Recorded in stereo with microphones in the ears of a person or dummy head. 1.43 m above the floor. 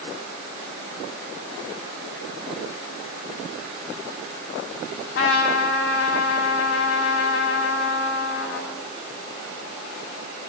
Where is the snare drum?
No snare drum in this recording.